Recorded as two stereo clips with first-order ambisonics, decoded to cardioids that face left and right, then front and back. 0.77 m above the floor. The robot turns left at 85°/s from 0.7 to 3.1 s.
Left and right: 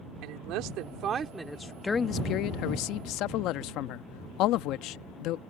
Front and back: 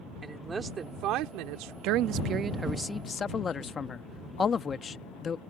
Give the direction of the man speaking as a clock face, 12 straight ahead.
6 o'clock.